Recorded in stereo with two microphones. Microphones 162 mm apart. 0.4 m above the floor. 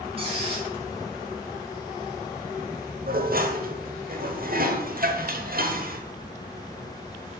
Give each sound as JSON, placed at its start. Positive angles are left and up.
{"t": 0.2, "sound": "a squeak", "side_deg": -35, "distance_m": 3.0}
{"t": 3.1, "sound": "dishes clattering", "side_deg": -65, "distance_m": 1.1}